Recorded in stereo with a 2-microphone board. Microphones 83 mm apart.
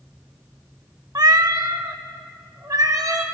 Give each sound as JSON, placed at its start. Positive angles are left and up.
{"t": 1.1, "sound": "a cat meowing", "side_deg": -50, "distance_m": 0.5}